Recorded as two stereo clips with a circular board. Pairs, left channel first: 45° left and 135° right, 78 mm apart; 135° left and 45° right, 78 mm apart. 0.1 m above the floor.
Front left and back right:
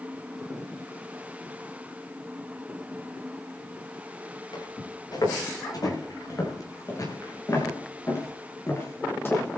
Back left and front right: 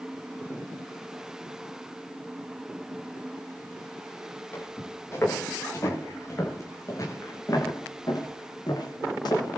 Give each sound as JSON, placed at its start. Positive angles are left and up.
{"t": 4.5, "sound": "footsteps", "azimuth_deg": 75, "distance_m": 8.5}